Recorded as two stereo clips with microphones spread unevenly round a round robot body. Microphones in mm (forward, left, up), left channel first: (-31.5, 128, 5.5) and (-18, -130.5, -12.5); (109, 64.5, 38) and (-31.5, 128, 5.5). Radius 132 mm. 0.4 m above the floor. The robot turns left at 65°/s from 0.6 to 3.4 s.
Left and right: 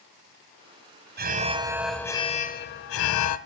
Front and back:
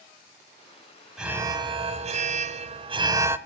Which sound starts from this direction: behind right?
An alarm, at 1.2 s.